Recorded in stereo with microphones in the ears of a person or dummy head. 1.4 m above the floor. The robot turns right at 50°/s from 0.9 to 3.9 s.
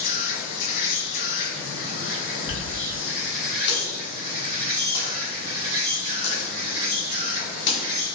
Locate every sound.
0.0 s an insect: 50° left, 1.2 m; by 8.2 s 160° right, 1.2 m
2.5 s a dropped coin: 20° left (ahead or behind), 1.5 m; by 7.8 s 60° left (ahead or behind), 1.5 m